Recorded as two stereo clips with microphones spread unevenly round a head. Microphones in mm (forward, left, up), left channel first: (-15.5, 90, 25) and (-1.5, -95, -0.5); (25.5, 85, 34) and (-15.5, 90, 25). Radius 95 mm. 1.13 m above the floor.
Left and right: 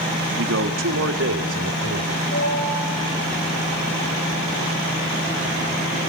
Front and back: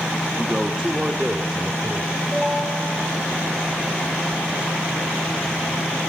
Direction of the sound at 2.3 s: 55° left.